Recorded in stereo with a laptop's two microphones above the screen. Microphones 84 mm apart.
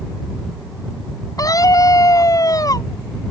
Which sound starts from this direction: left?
A scream, at 1.4 s.